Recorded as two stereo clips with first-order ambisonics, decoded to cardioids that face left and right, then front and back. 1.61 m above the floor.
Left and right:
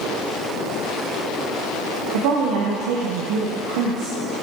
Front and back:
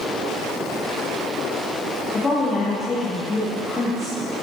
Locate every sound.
2.1 s a woman speaking: 80° right, 1.0 m